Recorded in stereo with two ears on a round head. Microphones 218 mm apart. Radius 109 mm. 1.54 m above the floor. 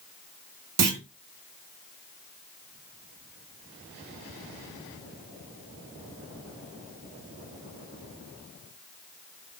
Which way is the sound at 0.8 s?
70° right (ahead or behind).